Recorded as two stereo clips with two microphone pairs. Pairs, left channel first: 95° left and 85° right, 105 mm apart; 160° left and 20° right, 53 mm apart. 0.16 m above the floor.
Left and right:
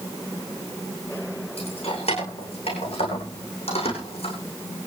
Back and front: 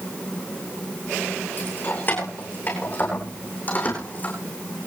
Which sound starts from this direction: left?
Keys jangling, at 1.6 s.